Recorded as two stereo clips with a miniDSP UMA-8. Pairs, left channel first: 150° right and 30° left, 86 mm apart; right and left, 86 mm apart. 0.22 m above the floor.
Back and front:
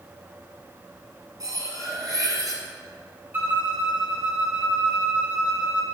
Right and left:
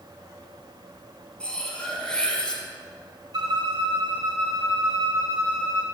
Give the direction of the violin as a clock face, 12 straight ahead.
9 o'clock.